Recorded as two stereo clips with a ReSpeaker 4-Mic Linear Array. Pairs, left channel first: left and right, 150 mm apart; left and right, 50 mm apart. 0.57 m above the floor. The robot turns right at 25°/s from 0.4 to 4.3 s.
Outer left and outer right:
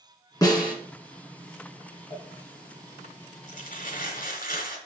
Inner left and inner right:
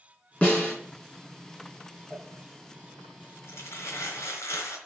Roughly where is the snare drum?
Left.